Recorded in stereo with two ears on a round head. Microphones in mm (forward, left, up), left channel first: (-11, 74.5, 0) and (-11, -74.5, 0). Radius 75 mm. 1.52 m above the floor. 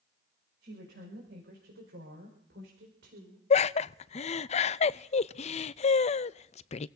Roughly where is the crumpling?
No crumpling in this recording.